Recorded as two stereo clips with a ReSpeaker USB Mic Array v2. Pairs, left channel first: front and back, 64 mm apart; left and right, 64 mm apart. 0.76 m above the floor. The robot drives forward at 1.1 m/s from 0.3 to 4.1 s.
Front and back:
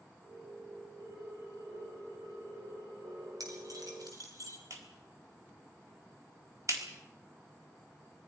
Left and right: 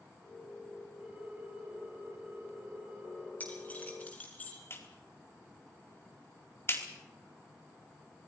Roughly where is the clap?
Behind left.